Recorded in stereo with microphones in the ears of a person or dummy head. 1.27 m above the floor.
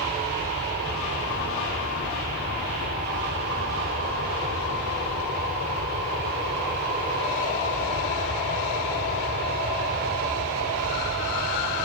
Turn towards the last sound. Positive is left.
turn(degrees=-50)  # may be behind; listen again after turning